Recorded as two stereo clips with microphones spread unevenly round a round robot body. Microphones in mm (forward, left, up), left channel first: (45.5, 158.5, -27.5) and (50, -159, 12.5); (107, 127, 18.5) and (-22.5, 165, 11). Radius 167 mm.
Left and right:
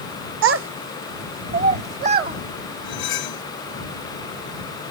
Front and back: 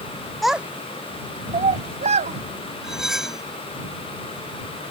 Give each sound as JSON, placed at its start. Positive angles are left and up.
{"t": 0.4, "sound": "a child speaking", "azimuth_deg": -110}
{"t": 2.8, "sound": "cutlery clinking", "azimuth_deg": 75}